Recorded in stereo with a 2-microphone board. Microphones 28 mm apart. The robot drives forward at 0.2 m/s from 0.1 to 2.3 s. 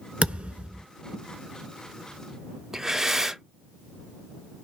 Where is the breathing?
15° right (ahead or behind), 0.6 m.